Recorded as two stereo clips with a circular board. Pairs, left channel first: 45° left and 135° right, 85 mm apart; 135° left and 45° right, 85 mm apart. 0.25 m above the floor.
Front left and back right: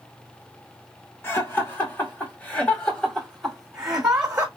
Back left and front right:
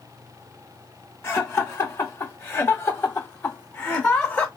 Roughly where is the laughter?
Left.